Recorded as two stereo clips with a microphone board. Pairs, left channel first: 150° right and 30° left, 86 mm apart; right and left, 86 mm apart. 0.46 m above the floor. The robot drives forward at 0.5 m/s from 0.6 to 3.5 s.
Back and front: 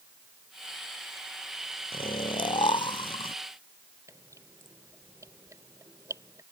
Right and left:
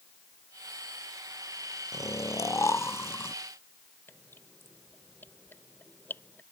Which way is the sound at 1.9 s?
140° right.